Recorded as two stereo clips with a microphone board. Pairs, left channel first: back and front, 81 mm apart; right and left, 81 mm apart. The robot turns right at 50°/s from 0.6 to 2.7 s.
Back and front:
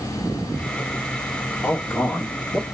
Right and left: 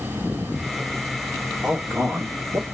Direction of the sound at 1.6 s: 115° left.